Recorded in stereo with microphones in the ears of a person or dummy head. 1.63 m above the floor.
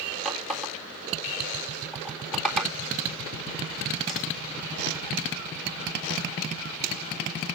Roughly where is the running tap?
Centre.